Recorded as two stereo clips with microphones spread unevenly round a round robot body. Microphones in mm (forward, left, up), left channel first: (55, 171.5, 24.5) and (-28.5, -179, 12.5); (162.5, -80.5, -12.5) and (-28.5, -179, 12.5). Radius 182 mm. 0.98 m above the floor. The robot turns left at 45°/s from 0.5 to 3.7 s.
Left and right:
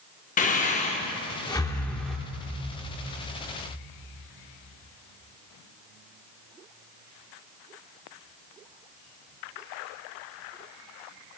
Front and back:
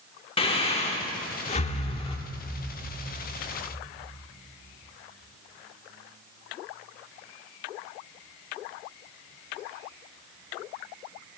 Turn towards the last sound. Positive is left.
turn(degrees=-80)